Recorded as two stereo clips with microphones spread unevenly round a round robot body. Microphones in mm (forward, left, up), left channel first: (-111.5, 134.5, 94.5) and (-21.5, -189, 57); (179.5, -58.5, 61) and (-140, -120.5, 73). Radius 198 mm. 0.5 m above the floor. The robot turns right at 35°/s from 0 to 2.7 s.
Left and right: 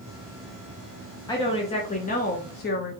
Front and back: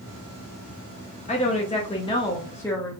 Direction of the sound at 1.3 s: 30° left.